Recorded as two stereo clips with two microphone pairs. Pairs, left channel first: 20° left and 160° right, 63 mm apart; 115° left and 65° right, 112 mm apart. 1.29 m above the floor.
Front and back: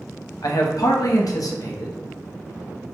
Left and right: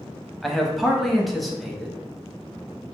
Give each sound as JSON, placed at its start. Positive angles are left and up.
{"t": 0.4, "sound": "a man speaking", "azimuth_deg": 25, "distance_m": 0.6}